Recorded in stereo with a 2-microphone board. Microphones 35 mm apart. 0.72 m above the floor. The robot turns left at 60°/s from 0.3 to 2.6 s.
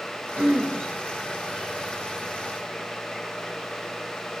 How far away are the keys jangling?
No keys jangling in this recording.